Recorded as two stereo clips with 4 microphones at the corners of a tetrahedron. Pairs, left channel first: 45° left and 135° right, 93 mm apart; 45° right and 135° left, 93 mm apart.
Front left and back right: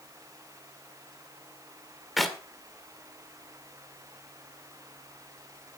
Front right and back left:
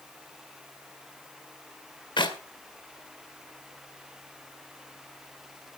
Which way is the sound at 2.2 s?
45° right.